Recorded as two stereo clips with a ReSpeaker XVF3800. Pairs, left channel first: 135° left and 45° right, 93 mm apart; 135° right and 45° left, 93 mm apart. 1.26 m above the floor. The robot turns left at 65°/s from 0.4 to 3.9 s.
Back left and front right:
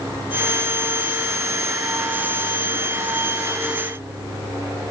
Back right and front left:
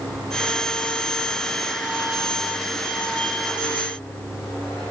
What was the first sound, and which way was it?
Only background noise.